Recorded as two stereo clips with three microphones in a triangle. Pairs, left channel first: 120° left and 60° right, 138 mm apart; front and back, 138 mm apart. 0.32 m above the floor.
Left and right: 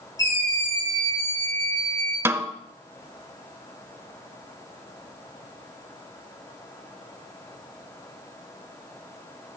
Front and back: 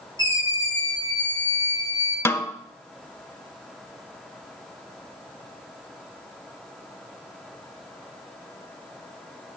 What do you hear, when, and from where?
0.2 s a scream: 55° left, 6 m
2.2 s a snare drum: 30° right, 0.6 m